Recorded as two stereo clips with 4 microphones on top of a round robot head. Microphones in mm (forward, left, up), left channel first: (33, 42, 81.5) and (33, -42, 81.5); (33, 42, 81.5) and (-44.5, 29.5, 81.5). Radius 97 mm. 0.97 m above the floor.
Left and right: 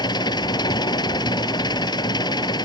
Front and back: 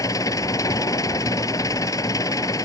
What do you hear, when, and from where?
0.0 s an engine running: 55° left